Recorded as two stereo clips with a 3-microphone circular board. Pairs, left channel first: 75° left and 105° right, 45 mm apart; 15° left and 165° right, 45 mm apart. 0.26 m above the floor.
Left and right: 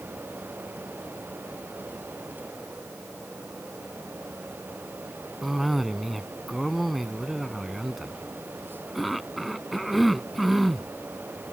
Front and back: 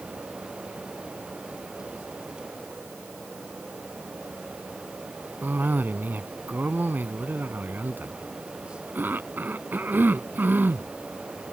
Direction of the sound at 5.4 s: 165° left.